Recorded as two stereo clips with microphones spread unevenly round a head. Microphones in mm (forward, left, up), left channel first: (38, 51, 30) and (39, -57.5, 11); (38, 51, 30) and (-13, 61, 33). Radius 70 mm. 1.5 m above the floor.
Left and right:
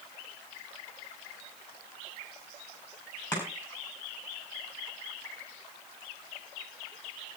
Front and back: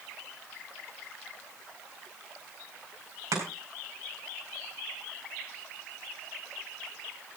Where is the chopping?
160° left, 5 m.